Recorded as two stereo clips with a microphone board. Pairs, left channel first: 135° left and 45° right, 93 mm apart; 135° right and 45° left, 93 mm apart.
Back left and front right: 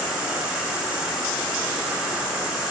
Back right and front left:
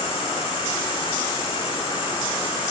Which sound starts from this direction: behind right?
An insect, at 0.0 s.